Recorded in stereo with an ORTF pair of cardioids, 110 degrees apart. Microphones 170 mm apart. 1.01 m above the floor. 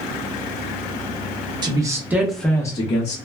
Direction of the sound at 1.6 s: 25° right.